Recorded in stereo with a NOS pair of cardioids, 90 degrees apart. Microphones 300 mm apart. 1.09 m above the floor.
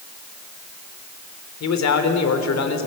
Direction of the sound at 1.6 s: 60° left.